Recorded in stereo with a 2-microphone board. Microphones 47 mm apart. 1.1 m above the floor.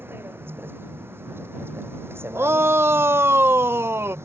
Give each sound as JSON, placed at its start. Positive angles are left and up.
{"t": 0.0, "sound": "a vehicle", "side_deg": -50}
{"t": 2.4, "sound": "a shout", "side_deg": -55}